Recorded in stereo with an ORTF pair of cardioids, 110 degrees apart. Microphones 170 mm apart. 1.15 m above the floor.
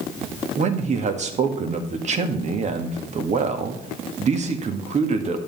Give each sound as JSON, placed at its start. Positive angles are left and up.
{"t": 0.6, "sound": "a man speaking", "azimuth_deg": -45, "distance_m": 1.7}